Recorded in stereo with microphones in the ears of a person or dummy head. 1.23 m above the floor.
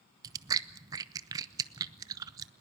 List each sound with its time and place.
0.2 s chewing: 20° right (ahead or behind), 0.7 m